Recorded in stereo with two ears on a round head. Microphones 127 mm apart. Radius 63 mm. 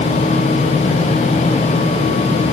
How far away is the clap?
No clap in this recording.